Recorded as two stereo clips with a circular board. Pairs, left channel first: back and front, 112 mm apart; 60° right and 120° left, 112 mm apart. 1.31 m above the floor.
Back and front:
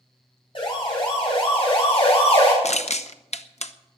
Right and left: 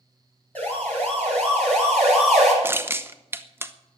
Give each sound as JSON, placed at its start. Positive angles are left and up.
{"t": 0.6, "sound": "a siren", "azimuth_deg": -135, "distance_m": 9.0}
{"t": 2.6, "sound": "crushing", "azimuth_deg": -170, "distance_m": 0.8}